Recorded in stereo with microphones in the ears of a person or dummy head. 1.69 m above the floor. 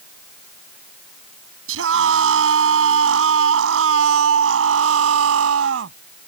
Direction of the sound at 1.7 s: 80° right.